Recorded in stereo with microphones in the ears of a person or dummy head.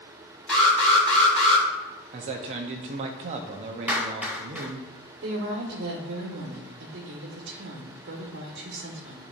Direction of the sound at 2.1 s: 35° right (ahead or behind).